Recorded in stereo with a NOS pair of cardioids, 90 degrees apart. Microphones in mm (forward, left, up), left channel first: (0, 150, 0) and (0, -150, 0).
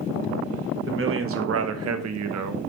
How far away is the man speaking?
About 1.4 m.